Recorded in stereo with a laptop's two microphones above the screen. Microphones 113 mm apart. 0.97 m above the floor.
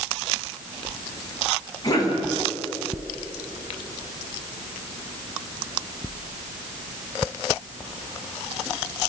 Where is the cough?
35° left (ahead or behind), 9.5 m.